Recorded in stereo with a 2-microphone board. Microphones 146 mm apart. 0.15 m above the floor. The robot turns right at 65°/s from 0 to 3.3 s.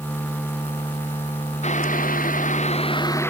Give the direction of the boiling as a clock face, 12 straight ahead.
10 o'clock.